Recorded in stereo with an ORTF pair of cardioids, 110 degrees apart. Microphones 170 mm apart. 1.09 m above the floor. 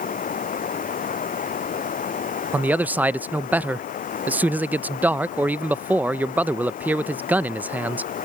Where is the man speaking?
10° right.